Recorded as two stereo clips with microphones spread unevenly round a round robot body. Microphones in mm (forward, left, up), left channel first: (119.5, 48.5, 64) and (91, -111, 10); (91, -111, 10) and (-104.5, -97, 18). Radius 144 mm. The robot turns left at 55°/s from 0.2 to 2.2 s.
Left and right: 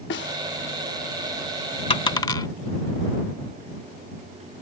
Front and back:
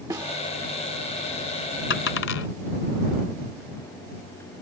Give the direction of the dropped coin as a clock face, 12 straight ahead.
11 o'clock.